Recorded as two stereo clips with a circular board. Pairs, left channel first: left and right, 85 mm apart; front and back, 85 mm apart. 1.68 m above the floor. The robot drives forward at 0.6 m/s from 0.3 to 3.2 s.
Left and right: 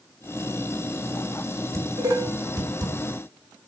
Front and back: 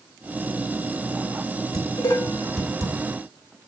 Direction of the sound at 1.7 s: 45° right.